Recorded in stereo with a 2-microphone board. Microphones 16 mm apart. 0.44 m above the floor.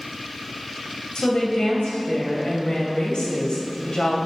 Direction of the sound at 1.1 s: 60° left (ahead or behind).